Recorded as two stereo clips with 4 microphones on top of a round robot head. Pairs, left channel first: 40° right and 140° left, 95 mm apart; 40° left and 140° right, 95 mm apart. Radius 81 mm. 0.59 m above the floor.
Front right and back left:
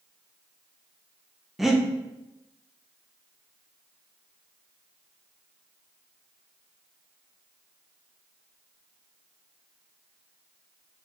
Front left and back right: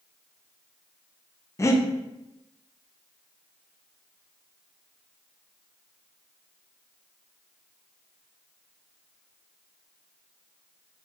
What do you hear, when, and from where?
1.6 s breathing: 55° left, 0.5 m